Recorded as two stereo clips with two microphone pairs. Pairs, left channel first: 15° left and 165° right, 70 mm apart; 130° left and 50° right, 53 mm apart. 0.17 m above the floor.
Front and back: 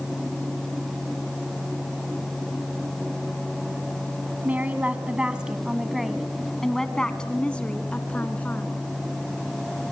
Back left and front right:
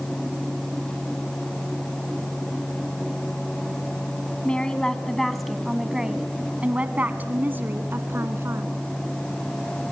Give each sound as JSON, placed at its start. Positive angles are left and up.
{"t": 4.4, "sound": "a woman speaking", "azimuth_deg": 170, "distance_m": 1.6}